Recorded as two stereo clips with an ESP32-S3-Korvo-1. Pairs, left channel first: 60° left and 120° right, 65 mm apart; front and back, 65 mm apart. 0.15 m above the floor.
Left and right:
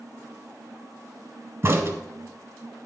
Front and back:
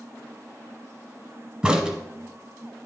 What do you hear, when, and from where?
1.6 s a crack: 115° right, 1.2 m